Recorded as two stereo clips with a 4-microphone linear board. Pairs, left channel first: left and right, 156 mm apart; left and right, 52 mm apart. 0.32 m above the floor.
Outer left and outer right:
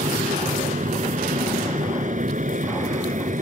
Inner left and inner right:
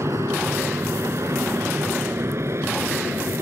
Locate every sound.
0.0 s an aircraft: 55° right (ahead or behind)